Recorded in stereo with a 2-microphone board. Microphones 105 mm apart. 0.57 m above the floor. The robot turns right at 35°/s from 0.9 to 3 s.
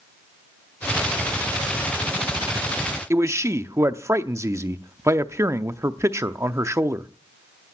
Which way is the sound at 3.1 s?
30° right (ahead or behind).